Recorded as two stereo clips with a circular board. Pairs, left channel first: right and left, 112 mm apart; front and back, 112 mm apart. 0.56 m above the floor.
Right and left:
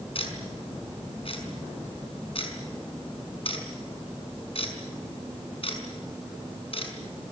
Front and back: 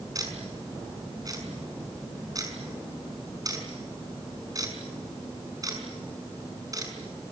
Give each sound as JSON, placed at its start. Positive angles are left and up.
{"t": 0.1, "sound": "ticking", "azimuth_deg": -125, "distance_m": 5.0}